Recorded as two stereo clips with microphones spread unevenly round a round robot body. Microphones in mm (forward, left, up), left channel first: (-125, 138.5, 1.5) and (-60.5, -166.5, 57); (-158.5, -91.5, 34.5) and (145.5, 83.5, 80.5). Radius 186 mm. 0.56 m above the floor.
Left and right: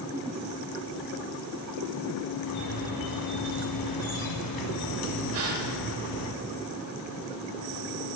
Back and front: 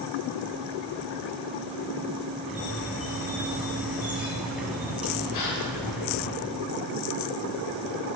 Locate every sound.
2.5 s a squeak: 115° left, 1.5 m
5.3 s a gasp: 120° right, 2.5 m